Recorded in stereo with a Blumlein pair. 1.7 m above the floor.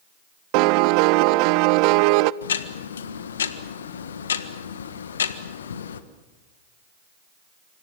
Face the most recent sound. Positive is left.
turn(degrees=65)